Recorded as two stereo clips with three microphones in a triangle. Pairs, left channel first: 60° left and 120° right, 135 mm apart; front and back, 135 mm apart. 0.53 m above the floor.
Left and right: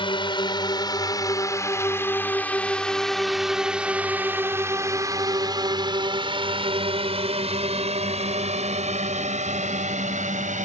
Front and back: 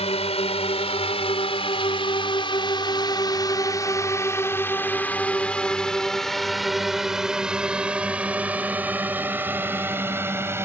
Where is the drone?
20° left; by 10.7 s 110° right.